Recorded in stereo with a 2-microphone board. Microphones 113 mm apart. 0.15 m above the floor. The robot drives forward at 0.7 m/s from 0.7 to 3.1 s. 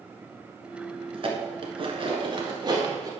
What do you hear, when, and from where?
1.1 s dishes clattering: 50° right (ahead or behind), 1.3 m; by 3.1 s 35° right (ahead or behind), 1.8 m